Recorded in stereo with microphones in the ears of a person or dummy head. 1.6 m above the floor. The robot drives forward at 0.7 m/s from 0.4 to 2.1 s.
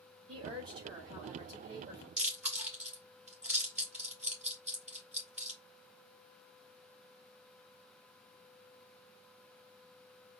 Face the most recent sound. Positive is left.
turn(degrees=-5)  # may be behind; listen again after turning